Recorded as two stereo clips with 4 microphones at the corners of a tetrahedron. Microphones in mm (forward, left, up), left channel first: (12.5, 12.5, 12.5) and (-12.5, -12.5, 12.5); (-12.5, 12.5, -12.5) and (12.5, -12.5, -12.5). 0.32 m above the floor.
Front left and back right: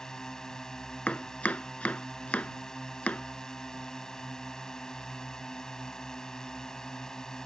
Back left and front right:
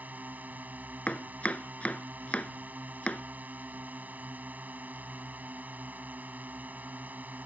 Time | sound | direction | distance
0.0 | a drone | 25° right | ?
1.1 | chopping | 85° left | ?